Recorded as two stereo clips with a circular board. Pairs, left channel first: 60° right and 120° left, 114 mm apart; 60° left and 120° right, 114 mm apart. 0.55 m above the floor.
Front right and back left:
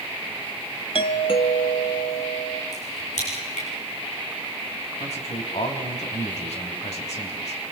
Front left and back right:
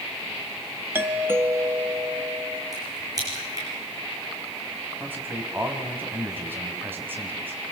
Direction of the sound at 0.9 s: 55° right.